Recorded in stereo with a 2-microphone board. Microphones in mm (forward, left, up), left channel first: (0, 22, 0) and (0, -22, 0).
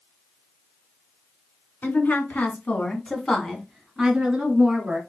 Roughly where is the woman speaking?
Left.